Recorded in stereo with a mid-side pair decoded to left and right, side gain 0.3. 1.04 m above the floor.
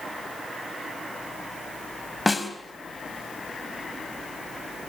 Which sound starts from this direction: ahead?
A snare drum, at 2.3 s.